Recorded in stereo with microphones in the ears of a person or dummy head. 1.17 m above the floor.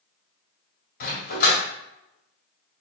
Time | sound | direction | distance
1.0 | a dog barking | 55° left (ahead or behind) | 1.9 m